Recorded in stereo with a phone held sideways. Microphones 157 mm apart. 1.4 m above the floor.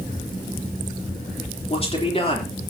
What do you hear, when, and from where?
1.7 s a man speaking: 40° left (ahead or behind), 3.5 m